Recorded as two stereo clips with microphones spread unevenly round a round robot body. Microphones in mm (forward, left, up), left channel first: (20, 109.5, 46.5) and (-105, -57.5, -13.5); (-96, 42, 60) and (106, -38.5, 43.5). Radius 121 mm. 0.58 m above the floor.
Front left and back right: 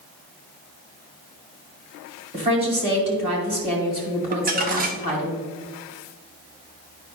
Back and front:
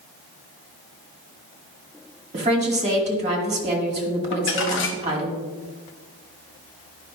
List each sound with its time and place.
2.3 s a woman speaking: 75° right, 2.5 m
4.3 s crumpling: 170° right, 1.0 m